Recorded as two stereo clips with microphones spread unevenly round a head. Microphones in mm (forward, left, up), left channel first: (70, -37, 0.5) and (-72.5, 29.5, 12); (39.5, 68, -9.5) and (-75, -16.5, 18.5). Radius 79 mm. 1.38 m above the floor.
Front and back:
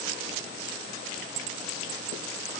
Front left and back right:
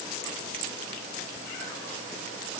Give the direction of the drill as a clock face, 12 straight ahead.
I don't hear a drill.